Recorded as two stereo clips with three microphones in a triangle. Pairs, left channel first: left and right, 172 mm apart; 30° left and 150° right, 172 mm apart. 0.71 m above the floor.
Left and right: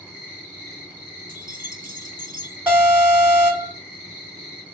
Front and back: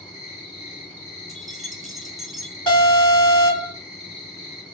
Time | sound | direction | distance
0.0 | an insect | 25° right | 1.8 m
1.3 | keys jangling | 60° right | 0.9 m
2.7 | an alarm | 10° right | 2.0 m